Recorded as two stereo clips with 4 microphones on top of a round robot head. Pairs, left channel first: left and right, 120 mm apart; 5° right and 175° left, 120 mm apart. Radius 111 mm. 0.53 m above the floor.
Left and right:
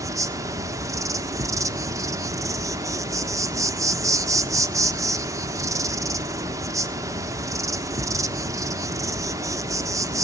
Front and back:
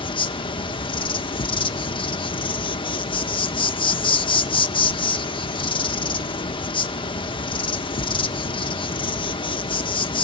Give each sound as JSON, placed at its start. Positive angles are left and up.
{"t": 0.0, "sound": "an insect", "azimuth_deg": -35, "distance_m": 1.1}